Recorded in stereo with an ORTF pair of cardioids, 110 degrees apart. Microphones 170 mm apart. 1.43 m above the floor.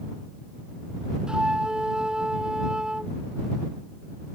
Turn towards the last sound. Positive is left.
turn(degrees=-5)